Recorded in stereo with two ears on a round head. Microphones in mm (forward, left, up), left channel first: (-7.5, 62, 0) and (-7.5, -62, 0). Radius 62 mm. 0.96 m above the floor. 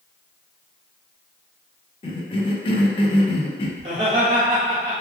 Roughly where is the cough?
Left.